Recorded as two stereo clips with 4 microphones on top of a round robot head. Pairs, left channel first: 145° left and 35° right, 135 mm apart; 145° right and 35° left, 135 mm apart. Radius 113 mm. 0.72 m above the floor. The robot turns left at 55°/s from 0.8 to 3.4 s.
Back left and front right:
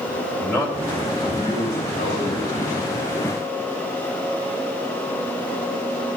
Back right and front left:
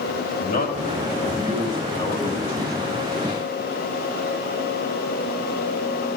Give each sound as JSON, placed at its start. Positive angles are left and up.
{"t": 0.4, "sound": "a man speaking", "azimuth_deg": -130, "distance_m": 4.5}